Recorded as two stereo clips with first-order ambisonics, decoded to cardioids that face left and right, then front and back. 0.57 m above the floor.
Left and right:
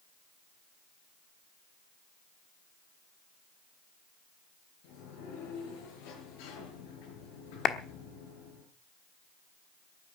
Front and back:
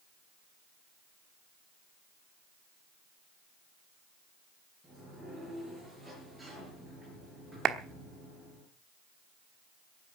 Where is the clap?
135° left, 1.0 m.